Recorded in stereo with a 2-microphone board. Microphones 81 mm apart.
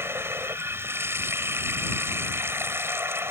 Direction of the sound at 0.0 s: 30° right (ahead or behind).